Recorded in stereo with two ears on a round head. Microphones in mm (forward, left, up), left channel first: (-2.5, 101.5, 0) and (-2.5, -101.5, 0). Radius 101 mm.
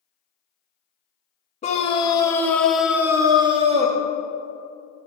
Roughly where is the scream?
Left.